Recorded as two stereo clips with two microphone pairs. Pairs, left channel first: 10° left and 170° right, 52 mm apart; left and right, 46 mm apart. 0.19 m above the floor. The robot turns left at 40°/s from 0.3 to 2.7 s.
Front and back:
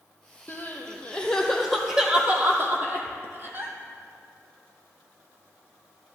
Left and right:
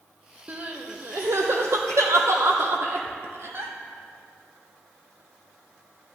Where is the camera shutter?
I don't hear a camera shutter.